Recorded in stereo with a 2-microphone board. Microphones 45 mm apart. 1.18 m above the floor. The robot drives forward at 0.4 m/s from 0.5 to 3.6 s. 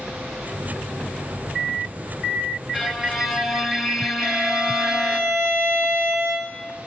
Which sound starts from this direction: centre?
A violin, at 2.7 s.